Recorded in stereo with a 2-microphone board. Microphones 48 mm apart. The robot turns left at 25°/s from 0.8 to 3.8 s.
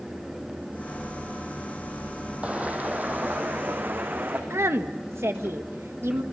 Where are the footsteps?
30° right (ahead or behind), 2.5 m; by 4.4 s 50° right (ahead or behind), 4.5 m.